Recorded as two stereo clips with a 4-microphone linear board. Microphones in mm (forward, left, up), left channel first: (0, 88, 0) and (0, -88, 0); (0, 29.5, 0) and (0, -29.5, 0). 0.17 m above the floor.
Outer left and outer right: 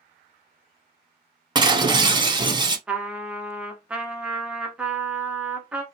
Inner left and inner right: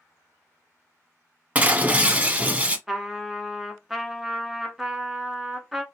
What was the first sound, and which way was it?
Breaking glass, 25° right (ahead or behind).